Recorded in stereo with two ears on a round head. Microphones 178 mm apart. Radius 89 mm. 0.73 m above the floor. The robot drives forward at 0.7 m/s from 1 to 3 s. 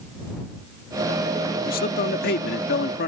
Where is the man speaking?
45° left (ahead or behind); by 3.1 s 50° left (ahead or behind).